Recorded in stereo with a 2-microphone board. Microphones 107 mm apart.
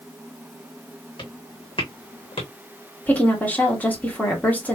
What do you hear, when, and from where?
1.2 s footsteps: 50° left (ahead or behind), 2 m; by 2.5 s 65° left (ahead or behind), 1.9 m
3.1 s a woman speaking: 15° left (ahead or behind), 1.7 m